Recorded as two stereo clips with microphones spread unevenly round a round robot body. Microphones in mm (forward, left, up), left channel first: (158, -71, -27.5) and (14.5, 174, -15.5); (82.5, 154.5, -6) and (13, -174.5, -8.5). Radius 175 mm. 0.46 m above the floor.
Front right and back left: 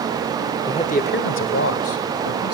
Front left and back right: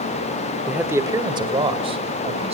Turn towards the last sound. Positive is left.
turn(degrees=-30)